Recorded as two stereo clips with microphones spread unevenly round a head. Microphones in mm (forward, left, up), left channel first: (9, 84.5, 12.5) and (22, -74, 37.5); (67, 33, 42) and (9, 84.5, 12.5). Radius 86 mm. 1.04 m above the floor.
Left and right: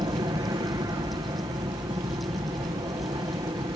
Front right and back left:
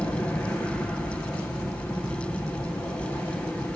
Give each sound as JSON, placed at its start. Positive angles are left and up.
{"t": 0.0, "sound": "an aircraft", "azimuth_deg": -125}